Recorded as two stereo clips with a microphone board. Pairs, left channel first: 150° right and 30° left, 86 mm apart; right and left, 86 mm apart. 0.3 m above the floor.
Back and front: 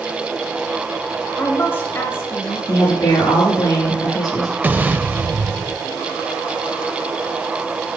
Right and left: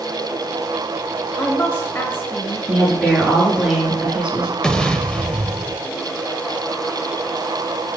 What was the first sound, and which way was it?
A woman speaking, 125° right.